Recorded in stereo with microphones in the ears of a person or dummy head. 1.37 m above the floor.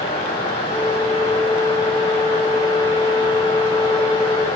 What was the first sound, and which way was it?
A flute, 20° right (ahead or behind).